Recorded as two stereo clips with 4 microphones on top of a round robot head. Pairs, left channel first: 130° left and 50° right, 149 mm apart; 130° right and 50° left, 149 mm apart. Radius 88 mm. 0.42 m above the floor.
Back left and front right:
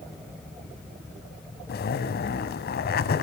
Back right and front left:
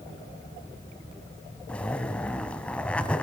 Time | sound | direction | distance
1.7 | a zipper | 150° left | 1.2 m